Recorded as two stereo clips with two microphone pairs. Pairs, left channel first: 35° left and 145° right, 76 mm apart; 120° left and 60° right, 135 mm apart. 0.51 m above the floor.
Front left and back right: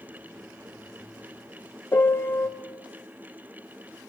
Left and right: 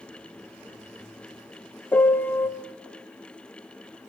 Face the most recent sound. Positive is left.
turn(degrees=55)